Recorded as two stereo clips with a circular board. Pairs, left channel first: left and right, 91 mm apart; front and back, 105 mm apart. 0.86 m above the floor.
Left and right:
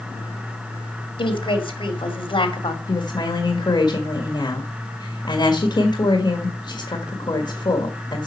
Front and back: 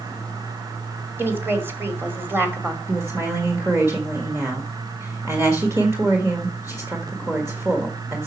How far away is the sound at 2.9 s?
About 1.6 m.